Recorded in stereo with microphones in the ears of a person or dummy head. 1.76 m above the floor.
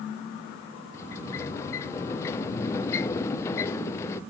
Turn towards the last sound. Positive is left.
turn(degrees=20)  # may be behind; listen again after turning